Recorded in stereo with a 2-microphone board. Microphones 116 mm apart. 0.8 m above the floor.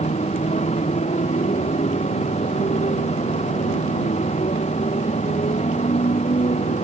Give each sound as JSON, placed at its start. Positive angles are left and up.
{"t": 0.0, "sound": "a motorcycle", "side_deg": 75}